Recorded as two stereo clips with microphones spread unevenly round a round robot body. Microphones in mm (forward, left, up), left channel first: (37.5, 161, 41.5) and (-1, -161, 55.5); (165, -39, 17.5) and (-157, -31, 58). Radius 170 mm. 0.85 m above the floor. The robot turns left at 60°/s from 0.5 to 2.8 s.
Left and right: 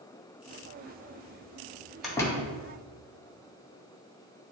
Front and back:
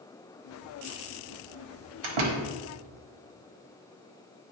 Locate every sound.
2.0 s a door slam: 175° left, 1.2 m; by 2.5 s 145° left, 1.2 m